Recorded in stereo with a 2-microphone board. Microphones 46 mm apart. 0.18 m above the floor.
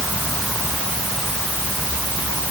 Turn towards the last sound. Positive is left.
No sound to turn to.